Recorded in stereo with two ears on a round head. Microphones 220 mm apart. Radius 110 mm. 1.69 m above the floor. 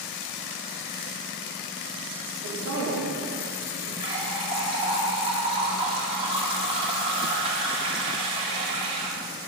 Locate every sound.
2.4 s a woman speaking: 40° right (ahead or behind), 4.5 m
4.0 s a running tap: 25° right (ahead or behind), 2.5 m